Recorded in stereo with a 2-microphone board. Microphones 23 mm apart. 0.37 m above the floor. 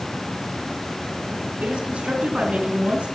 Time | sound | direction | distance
1.6 | a woman speaking | 70° right (ahead or behind) | 3.5 m